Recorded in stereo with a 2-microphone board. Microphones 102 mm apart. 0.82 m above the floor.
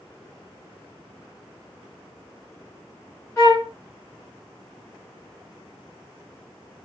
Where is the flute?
30° left (ahead or behind), 2 m.